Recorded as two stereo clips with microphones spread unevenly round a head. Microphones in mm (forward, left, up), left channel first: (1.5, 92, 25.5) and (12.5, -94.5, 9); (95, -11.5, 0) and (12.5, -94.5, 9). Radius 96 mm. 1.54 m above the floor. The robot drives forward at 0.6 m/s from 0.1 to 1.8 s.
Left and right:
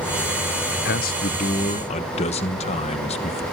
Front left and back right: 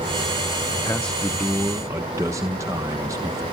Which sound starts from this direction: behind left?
A man speaking, at 0.8 s.